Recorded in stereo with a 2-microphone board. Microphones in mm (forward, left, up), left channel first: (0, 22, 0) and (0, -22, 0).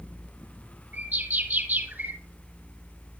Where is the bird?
35° right (ahead or behind), 1.9 m.